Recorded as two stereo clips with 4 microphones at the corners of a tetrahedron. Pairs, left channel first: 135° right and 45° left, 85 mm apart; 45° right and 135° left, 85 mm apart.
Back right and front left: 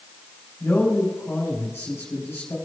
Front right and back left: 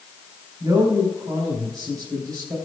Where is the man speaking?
165° left, 5 m.